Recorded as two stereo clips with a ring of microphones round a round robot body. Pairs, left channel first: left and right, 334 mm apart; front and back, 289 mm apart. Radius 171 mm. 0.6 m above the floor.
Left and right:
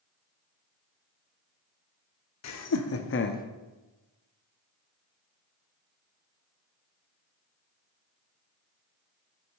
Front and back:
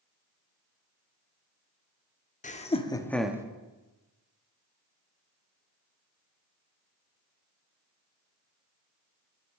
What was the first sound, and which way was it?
Laughter, 60° left.